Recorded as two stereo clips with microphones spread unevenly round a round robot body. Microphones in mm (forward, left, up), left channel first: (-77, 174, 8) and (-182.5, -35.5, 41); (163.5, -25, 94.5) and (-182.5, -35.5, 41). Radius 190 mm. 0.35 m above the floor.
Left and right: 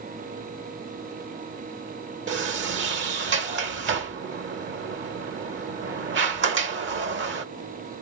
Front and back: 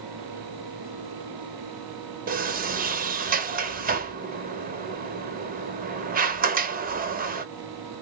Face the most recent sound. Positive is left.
turn(degrees=-135)